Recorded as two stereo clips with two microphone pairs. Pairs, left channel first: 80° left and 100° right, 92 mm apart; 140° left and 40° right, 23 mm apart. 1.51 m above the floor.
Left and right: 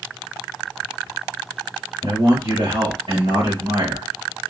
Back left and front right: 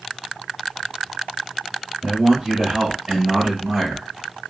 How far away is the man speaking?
About 1.6 m.